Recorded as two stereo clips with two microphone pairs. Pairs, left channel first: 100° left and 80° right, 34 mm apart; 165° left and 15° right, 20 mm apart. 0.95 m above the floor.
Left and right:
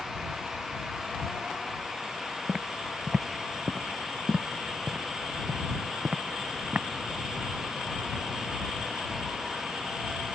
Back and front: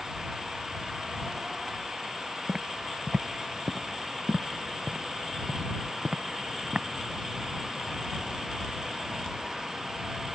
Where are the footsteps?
5° left; by 6.9 s 40° right.